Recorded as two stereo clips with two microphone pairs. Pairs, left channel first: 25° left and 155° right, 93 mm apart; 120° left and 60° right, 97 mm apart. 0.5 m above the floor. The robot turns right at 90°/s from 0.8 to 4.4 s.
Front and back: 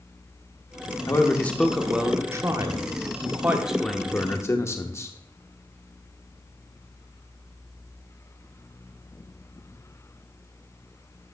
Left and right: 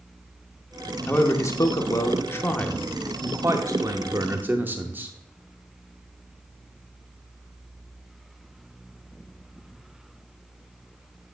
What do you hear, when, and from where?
1.1 s a man speaking: 55° left, 0.7 m; by 5.2 s 5° right, 0.7 m